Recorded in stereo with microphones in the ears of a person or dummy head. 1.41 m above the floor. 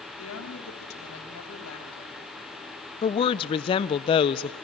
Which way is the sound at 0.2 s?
85° left.